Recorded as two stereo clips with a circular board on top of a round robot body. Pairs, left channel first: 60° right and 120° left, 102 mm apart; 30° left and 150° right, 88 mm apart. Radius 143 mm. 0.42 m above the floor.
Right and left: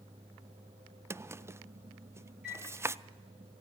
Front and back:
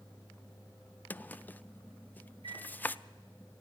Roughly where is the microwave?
Behind.